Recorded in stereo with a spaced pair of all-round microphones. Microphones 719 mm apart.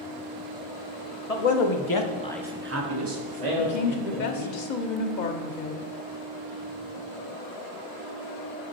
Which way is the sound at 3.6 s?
85° left.